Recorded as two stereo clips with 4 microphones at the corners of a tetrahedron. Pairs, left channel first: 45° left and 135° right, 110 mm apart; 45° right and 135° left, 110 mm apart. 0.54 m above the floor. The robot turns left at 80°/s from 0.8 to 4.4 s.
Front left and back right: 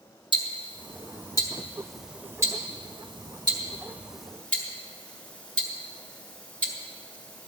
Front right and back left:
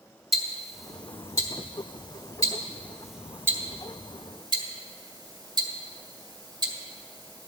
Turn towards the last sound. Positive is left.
turn(degrees=120)